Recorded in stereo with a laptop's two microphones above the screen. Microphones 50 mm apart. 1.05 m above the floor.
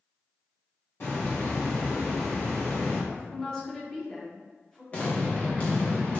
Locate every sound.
1.0 s a hiss: 55° left (ahead or behind), 1.4 m
3.1 s a woman speaking: 15° left (ahead or behind), 0.9 m
4.9 s an explosion: 30° left (ahead or behind), 0.8 m